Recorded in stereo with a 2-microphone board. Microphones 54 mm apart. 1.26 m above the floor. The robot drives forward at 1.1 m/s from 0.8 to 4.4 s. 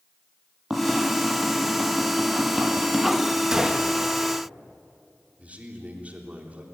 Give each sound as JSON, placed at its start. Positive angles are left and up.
{"t": 0.7, "sound": "tapping", "side_deg": -5, "distance_m": 7.5}
{"t": 3.5, "sound": "a gunshot", "side_deg": -15, "distance_m": 1.7}
{"t": 5.4, "sound": "a man speaking", "side_deg": -30, "distance_m": 3.5}